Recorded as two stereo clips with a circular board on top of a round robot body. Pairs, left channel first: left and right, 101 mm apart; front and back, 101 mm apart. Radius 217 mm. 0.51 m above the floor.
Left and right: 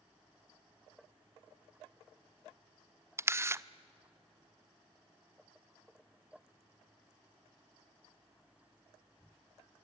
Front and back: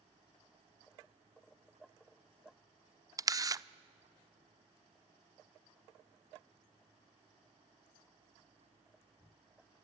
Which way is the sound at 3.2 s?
145° right.